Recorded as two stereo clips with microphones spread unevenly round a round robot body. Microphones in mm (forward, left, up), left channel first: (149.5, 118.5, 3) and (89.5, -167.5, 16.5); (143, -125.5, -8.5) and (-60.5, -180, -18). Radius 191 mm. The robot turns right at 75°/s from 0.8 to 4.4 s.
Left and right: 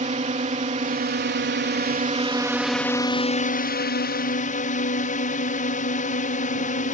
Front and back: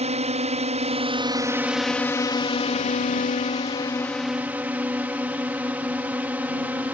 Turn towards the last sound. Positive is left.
turn(degrees=115)